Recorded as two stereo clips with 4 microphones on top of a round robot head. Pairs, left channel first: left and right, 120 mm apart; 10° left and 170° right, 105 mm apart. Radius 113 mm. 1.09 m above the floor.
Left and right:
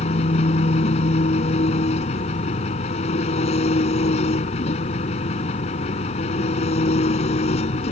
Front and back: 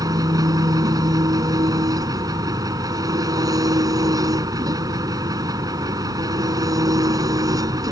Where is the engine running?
135° left.